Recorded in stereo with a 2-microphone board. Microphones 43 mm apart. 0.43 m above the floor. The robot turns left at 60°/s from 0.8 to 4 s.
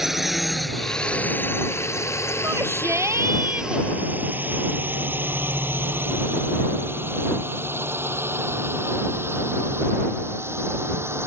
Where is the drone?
5° right (ahead or behind); by 11.3 s 65° right (ahead or behind).